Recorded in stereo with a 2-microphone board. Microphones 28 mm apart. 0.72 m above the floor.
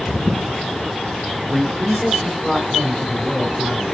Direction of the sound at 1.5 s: Centre (ahead or behind).